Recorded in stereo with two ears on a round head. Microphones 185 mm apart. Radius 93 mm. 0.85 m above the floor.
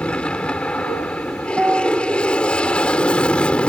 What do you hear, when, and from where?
0.0 s an aircraft: 5° left (ahead or behind)
1.5 s a piano: 5° right (ahead or behind)